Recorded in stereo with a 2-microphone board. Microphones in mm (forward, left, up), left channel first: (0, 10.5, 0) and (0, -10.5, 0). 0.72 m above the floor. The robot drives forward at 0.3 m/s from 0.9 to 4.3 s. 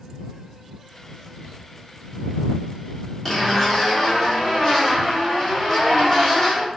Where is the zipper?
15° left (ahead or behind), 1.5 m; by 6.7 s 10° left (ahead or behind), 1.8 m.